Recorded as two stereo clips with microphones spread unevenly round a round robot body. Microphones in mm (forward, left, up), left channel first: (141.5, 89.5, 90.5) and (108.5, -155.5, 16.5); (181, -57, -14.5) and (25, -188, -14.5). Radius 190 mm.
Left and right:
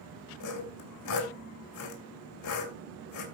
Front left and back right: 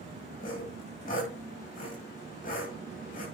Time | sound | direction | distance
0.4 | sawing | 110° left | 2.5 m